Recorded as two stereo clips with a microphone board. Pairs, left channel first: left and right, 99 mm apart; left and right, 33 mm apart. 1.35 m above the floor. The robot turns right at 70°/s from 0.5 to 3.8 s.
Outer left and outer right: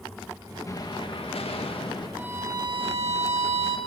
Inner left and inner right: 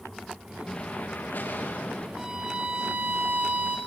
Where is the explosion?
30° left, 2 m; by 2.1 s 130° left, 2 m.